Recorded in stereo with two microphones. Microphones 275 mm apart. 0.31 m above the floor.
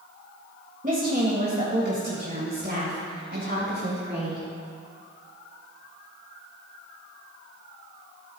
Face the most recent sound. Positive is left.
turn(degrees=-45)  # may be behind; listen again after turning